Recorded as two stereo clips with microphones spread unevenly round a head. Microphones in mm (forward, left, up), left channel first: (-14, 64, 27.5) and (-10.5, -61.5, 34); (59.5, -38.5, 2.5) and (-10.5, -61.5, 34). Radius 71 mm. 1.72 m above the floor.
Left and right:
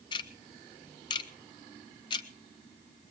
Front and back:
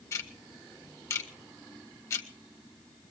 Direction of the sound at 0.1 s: 95° left.